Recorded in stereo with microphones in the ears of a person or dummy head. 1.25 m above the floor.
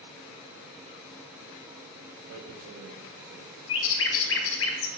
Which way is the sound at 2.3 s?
85° right.